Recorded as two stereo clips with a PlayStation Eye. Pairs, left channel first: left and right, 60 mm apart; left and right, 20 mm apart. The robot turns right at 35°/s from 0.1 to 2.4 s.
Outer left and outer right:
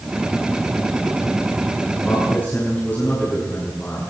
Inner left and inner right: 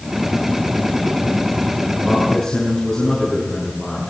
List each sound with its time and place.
2.0 s a man speaking: 20° left (ahead or behind), 7 m; by 4.1 s 30° left (ahead or behind), 7 m